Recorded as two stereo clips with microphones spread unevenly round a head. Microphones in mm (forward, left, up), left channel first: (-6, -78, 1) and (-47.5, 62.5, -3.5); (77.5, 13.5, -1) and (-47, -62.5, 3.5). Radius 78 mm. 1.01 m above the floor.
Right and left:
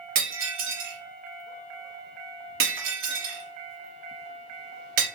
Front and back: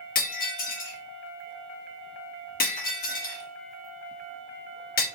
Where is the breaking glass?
70° left, 0.9 m.